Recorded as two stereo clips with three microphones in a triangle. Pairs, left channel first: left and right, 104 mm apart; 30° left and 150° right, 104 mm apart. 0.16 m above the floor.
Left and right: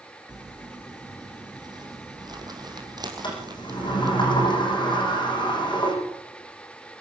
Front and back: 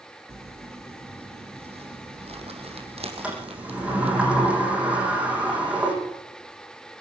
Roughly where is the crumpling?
Behind right.